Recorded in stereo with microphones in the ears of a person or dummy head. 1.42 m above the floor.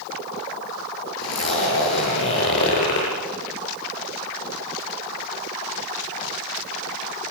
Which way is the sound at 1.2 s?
65° left (ahead or behind).